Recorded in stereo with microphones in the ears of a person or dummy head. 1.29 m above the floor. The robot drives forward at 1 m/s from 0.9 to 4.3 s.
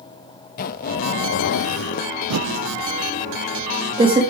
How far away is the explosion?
I don't hear an explosion.